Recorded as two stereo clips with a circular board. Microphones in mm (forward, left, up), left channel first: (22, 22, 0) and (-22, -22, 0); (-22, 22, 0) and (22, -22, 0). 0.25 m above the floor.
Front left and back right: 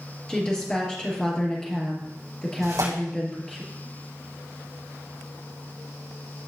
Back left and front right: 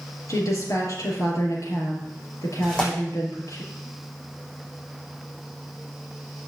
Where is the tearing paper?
155° right, 6 m.